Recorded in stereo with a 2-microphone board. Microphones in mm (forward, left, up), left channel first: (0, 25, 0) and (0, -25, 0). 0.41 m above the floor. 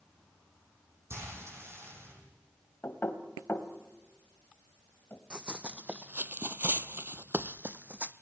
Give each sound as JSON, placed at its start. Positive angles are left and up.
{"t": 1.1, "sound": "frying", "side_deg": -60, "distance_m": 9.5}
{"t": 2.8, "sound": "knocking", "side_deg": 55, "distance_m": 1.8}
{"t": 5.3, "sound": "running footsteps", "side_deg": -20, "distance_m": 1.1}